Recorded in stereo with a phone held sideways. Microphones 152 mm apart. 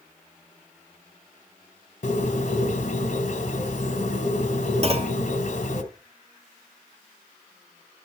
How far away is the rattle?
No rattle in this recording.